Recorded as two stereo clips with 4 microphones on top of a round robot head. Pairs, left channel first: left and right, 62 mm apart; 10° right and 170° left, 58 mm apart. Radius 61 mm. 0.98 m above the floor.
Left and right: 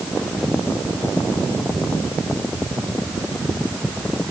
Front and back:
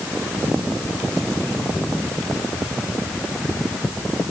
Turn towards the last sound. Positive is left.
No sound to turn to.